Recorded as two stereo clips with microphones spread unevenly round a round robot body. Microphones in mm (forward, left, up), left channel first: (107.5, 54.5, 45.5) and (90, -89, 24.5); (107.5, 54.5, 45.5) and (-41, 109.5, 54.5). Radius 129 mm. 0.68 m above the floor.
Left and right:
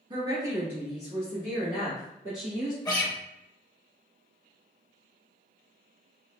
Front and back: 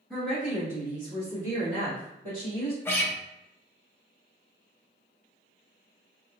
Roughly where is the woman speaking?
Right.